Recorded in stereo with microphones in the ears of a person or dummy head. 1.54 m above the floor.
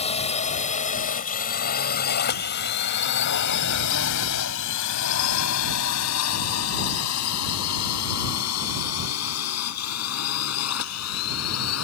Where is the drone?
35° left (ahead or behind); by 11.8 s 85° left.